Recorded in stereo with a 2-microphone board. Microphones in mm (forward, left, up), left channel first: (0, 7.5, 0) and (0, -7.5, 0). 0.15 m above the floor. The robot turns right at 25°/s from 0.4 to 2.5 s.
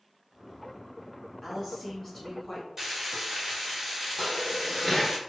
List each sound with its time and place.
1.4 s a woman speaking: 10° left (ahead or behind), 1.3 m; by 2.7 s 25° left (ahead or behind), 1.3 m
2.8 s frying: 20° right (ahead or behind), 1.2 m
4.2 s dishes clattering: 10° left (ahead or behind), 1.4 m